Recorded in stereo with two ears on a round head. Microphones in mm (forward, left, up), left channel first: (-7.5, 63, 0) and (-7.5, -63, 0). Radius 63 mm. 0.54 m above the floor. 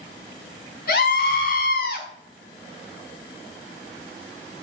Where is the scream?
75° left (ahead or behind), 5 m.